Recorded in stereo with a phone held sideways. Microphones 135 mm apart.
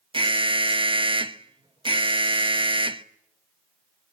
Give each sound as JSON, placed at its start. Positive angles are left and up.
{"t": 0.1, "sound": "an alarm", "side_deg": -40, "distance_m": 1.0}